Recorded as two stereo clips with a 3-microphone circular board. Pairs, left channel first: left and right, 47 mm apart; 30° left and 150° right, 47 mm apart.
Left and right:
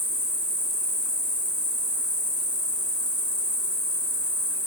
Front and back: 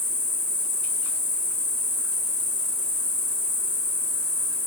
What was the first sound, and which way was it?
An insect, 110° left.